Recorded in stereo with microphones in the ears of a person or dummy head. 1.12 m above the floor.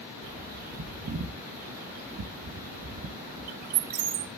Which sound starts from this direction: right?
A bird, at 0.2 s.